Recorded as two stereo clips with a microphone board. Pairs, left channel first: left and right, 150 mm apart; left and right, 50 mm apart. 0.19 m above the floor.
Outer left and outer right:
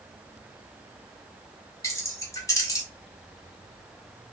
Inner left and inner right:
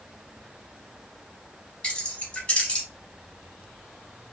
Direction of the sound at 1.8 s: 20° left (ahead or behind).